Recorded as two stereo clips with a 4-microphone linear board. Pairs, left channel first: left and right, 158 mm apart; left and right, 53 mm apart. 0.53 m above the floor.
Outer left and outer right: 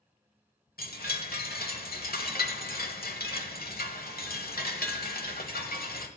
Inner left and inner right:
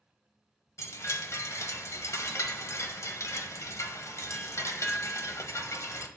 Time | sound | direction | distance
0.8 | a chime | 75° left (ahead or behind) | 0.9 m